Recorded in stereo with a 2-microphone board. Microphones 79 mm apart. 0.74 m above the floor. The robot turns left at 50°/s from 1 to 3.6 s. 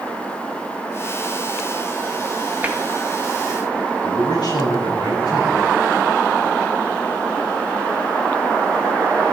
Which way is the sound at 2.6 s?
25° right (ahead or behind).